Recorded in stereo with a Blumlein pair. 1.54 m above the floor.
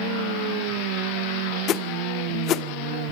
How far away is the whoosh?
About 1.0 m.